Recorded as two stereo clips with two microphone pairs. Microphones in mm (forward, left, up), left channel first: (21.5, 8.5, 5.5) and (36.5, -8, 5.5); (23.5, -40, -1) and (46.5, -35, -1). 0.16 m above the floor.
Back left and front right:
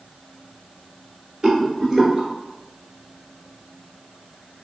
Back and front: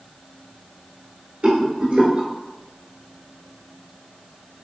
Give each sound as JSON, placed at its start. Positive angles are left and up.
{"t": 1.4, "sound": "a rattle", "azimuth_deg": 15, "distance_m": 1.2}